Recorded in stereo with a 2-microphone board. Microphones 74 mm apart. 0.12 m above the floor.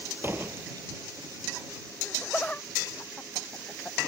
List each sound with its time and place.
0.2 s a door slam: 30° right (ahead or behind)
2.0 s laughter: 20° left (ahead or behind)